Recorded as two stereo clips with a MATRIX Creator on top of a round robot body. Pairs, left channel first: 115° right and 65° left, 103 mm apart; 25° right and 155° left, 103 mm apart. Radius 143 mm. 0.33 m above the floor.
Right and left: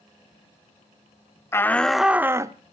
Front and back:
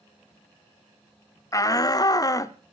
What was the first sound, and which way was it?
A shout, 60° right.